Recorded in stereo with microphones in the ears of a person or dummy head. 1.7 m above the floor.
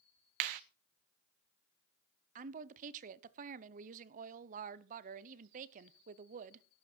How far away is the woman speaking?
About 0.9 m.